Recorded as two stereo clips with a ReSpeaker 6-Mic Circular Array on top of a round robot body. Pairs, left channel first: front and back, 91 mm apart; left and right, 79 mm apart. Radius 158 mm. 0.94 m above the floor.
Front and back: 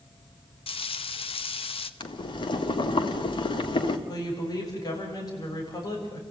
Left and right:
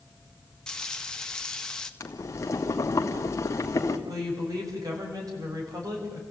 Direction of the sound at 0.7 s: 10° left.